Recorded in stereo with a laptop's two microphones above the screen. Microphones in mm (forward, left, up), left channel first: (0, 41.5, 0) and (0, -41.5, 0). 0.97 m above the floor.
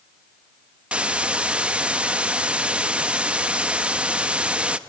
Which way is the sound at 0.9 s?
10° right (ahead or behind).